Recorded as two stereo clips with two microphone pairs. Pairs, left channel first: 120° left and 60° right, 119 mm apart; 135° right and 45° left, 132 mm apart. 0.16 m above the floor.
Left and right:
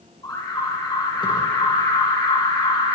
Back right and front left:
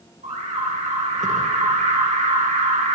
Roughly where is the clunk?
No clunk in this recording.